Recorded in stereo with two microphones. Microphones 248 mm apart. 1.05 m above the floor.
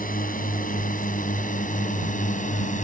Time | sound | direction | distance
0.0 | a drone | 35° left (ahead or behind) | ?